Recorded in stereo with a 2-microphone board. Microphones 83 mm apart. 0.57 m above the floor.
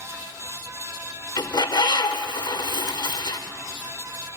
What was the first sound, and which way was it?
A bird, 60° left (ahead or behind).